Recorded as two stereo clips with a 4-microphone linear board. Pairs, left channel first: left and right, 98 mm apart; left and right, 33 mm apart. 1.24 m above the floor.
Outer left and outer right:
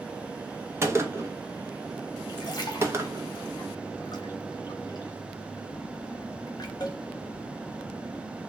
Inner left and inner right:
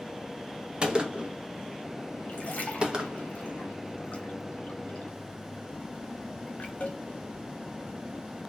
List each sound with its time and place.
0.8 s a gunshot: 25° right (ahead or behind), 0.6 m
2.3 s a splash: 40° left (ahead or behind), 0.8 m